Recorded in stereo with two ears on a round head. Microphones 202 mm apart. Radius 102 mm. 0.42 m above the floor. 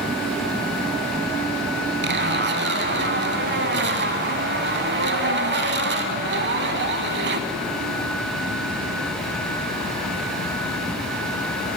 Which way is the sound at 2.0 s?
50° right (ahead or behind).